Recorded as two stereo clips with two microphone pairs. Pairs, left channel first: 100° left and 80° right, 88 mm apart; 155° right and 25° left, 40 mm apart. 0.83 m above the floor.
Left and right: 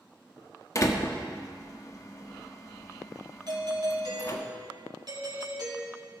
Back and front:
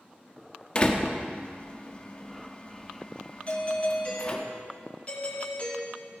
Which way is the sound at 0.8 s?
145° left.